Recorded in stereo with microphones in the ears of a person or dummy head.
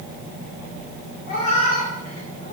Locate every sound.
1.3 s a cat meowing: 45° left (ahead or behind), 1.8 m; by 2.5 s 35° left (ahead or behind), 2.5 m